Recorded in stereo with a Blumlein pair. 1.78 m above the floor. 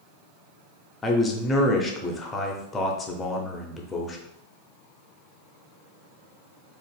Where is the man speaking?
15° left, 0.7 m.